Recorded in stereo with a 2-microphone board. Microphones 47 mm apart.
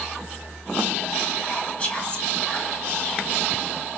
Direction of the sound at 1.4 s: 25° left (ahead or behind).